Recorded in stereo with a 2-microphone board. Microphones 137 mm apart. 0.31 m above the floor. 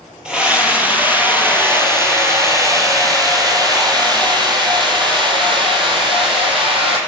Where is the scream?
5° right (ahead or behind), 6.5 m; by 7.0 s 40° right (ahead or behind), 9 m.